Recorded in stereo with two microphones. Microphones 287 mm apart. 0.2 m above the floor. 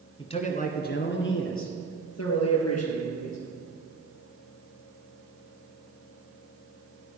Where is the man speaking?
15° left (ahead or behind), 1.7 m; by 3.4 s 65° left (ahead or behind), 4 m.